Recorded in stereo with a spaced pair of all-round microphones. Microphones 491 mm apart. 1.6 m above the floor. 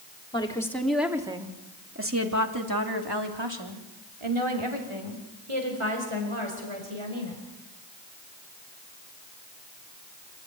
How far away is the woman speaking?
About 3.5 m.